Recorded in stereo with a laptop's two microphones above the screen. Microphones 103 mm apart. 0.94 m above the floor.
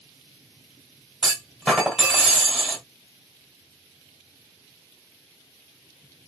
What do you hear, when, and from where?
1.2 s a clunk: 5° left (ahead or behind), 1.7 m